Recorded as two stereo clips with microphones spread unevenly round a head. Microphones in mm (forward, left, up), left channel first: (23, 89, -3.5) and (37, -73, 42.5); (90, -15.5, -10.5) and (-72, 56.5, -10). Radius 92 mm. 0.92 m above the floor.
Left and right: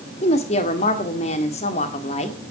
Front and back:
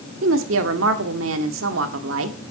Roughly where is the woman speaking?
Behind left.